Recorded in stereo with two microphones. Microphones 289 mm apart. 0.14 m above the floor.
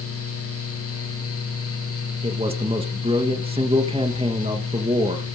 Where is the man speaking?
20° right (ahead or behind), 1.8 m.